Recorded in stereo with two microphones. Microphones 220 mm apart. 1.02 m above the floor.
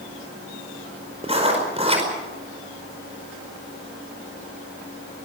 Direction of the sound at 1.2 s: 25° right (ahead or behind).